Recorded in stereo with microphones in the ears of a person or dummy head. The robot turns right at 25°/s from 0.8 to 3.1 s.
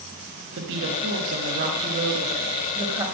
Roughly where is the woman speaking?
Right.